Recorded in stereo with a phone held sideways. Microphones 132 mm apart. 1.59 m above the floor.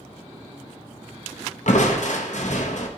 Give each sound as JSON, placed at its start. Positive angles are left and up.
{"t": 1.7, "sound": "crushing", "side_deg": 65, "distance_m": 0.6}